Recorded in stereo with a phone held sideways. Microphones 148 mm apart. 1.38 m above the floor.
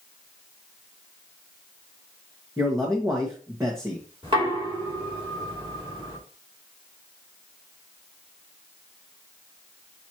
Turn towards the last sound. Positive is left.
turn(degrees=-35)  # may be behind; listen again after turning